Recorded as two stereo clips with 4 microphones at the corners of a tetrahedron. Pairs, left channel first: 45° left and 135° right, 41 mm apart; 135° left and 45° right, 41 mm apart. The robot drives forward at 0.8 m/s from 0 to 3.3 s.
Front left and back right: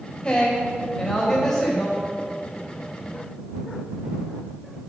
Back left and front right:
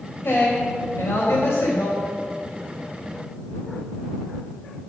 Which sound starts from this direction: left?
A woman speaking, at 0.2 s.